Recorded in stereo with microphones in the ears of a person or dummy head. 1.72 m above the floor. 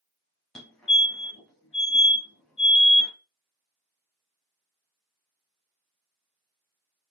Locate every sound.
0.6 s a fire alarm: 5° left (ahead or behind), 0.9 m